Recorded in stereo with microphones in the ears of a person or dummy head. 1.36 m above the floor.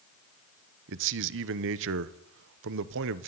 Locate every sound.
0.9 s a man speaking: 65° right (ahead or behind), 1.0 m